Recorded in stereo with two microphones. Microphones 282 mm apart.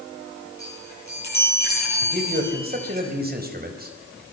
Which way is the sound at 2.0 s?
35° right (ahead or behind).